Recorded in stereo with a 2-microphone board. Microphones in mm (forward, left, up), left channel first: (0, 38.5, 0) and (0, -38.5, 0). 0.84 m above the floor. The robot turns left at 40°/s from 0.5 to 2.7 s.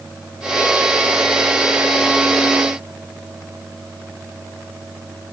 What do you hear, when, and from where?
Only background noise.